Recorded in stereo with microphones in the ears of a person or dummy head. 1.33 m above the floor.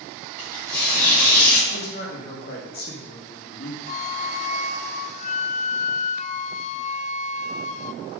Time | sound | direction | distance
0.4 | tearing paper | 5° left (ahead or behind) | 5 m
1.7 | a man speaking | 50° left (ahead or behind) | 2 m
3.9 | a flute | 40° left (ahead or behind) | 0.5 m